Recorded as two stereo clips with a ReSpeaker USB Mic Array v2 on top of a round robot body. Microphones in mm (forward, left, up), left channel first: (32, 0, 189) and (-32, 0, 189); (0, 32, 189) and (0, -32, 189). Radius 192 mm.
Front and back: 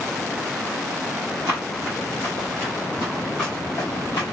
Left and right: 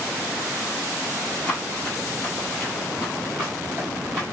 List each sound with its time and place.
1.5 s running footsteps: 155° left, 1.3 m; by 4.2 s 45° right, 1.0 m